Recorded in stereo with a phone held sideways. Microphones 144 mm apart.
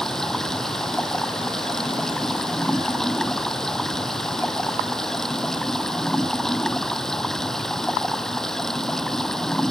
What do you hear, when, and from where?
0.0 s running water: 5° left (ahead or behind)